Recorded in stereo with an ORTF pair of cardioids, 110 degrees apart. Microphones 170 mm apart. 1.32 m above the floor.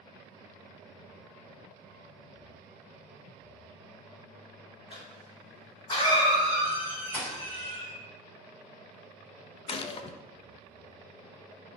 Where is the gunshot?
35° left, 0.8 m.